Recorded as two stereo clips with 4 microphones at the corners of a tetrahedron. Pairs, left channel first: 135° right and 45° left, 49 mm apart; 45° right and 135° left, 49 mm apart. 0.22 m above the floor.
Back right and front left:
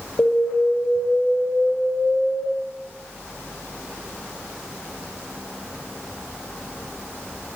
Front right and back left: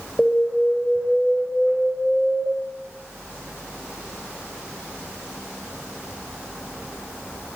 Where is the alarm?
120° right, 2 m.